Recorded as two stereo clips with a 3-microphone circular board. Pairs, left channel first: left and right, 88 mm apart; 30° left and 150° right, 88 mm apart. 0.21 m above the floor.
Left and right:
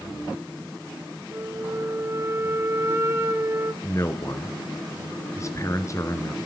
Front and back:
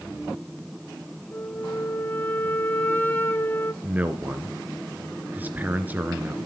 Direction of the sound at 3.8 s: 140° left.